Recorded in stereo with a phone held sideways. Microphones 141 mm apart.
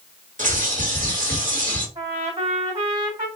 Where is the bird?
65° right (ahead or behind), 2 m.